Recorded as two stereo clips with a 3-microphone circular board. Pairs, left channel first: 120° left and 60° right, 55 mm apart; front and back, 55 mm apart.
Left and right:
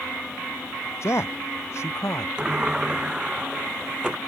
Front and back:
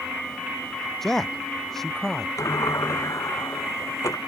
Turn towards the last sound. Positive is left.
turn(degrees=15)